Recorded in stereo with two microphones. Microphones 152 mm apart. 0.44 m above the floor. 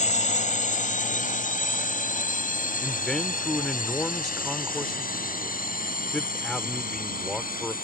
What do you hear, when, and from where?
0.0 s a drone: 55° left (ahead or behind); by 7.8 s 70° left (ahead or behind)
2.8 s a man speaking: 5° left (ahead or behind)